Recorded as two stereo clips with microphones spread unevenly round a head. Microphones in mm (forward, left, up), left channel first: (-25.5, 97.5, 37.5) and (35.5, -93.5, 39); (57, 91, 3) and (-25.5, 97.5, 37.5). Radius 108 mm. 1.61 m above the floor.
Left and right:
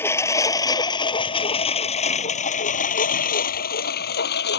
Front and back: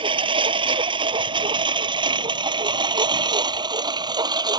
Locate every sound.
0.0 s a lawn mower: 175° right; by 4.6 s 150° left